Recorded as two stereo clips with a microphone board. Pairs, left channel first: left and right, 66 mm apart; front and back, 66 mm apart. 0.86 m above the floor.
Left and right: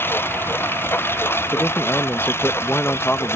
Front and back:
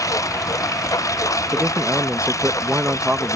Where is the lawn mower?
35° left; by 3.4 s 40° left.